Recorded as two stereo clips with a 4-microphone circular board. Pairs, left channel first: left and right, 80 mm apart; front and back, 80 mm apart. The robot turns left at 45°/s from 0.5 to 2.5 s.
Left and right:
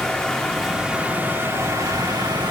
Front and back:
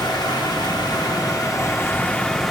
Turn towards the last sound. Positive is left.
turn(degrees=-85)